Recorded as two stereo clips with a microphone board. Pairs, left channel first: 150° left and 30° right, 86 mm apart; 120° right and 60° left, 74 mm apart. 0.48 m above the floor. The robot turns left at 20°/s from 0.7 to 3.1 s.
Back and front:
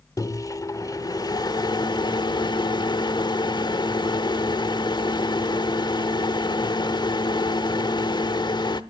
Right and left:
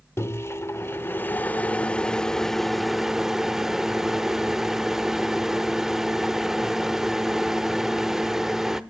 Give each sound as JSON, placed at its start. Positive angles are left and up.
{"t": 0.2, "sound": "a microwave", "azimuth_deg": -170, "distance_m": 0.9}